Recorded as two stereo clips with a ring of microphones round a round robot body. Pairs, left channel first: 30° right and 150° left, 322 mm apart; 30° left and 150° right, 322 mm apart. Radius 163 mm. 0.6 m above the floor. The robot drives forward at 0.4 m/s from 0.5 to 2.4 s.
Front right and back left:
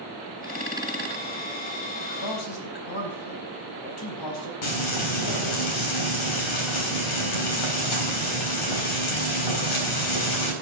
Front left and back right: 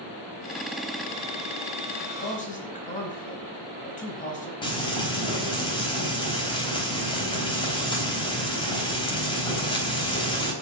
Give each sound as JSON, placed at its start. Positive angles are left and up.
{"t": 2.0, "sound": "a man speaking", "azimuth_deg": -35, "distance_m": 4.0}
{"t": 4.6, "sound": "frying", "azimuth_deg": -45, "distance_m": 4.0}